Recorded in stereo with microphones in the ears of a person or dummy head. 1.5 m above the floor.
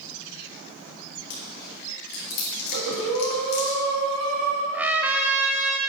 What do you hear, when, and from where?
1.3 s chewing: 65° left (ahead or behind), 2.0 m
2.7 s breathing: 80° right, 2 m
4.7 s a trumpet: centre (ahead or behind), 0.9 m